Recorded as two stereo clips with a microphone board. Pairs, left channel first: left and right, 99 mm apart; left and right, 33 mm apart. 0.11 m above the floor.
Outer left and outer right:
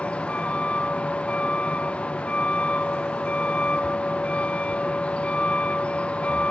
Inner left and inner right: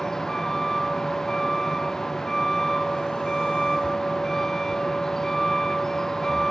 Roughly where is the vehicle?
Centre.